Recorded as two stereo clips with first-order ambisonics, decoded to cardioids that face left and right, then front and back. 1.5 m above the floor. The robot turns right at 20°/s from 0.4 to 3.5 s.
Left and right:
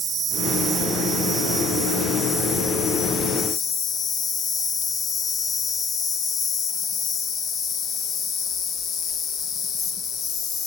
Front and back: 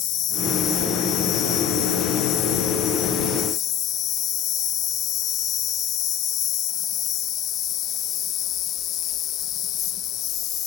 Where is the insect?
20° right, 1.4 m; by 10.7 s 45° left, 1.4 m.